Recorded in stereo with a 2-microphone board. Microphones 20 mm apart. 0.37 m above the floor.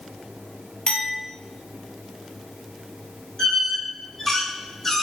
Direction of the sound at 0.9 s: 65° left (ahead or behind).